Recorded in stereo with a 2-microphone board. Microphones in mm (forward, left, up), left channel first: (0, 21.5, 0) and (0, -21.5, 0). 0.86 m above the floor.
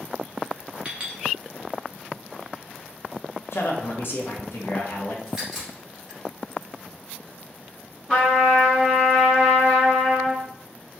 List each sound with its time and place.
0.8 s a clink: 30° right (ahead or behind), 0.9 m
3.5 s a man speaking: 60° left (ahead or behind), 0.8 m
5.3 s a crack: 10° right (ahead or behind), 1.4 m
8.1 s a trumpet: 5° left (ahead or behind), 1.4 m